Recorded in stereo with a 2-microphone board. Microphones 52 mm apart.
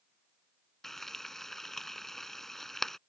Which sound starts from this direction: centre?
Frying, at 0.8 s.